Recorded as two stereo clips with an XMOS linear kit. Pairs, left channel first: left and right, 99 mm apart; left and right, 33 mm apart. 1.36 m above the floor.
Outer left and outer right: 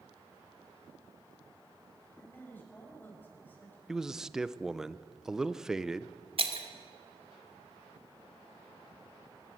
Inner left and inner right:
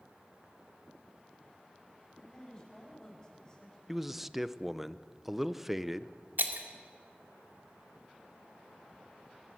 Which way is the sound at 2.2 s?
20° left (ahead or behind).